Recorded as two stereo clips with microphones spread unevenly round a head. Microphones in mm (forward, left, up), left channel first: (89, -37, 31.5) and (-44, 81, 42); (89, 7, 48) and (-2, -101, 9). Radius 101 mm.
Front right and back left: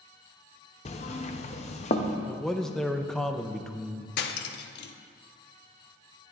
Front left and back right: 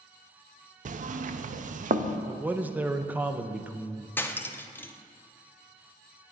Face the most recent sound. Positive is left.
turn(degrees=-20)